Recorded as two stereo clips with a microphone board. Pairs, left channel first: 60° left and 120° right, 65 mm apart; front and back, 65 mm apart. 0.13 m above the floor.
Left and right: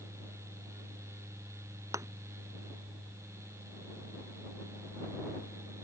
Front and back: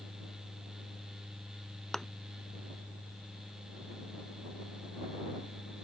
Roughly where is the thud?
Right.